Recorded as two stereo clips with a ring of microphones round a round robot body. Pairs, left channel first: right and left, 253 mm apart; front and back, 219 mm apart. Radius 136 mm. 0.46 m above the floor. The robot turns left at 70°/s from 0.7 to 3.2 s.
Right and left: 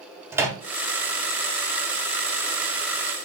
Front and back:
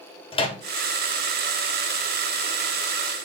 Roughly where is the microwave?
Ahead.